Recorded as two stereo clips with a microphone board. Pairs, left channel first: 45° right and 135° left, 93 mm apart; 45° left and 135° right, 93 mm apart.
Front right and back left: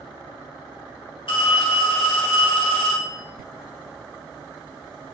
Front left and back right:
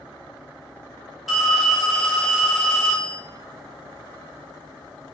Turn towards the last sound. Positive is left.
turn(degrees=-45)